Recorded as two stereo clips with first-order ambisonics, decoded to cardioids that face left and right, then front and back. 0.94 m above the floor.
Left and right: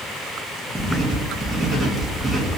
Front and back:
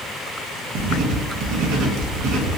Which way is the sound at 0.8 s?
175° right.